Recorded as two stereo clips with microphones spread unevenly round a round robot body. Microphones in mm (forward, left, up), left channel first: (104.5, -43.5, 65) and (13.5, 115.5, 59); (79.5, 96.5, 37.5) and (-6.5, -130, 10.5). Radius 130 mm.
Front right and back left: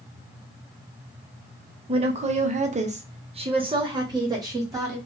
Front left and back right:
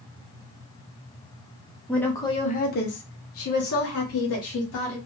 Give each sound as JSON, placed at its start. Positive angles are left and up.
{"t": 1.9, "sound": "a woman speaking", "azimuth_deg": 160, "distance_m": 0.7}